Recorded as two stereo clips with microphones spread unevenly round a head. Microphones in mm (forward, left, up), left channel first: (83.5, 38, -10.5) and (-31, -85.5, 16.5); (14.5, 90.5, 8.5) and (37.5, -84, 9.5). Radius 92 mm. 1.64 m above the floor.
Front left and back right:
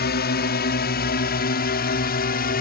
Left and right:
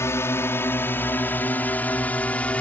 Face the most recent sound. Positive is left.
turn(degrees=15)